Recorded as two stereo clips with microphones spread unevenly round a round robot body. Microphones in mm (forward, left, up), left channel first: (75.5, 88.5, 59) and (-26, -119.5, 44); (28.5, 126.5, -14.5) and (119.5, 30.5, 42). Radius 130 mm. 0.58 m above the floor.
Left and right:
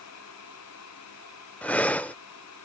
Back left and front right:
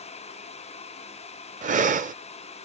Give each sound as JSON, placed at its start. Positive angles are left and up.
{"t": 1.6, "sound": "breathing", "azimuth_deg": -20}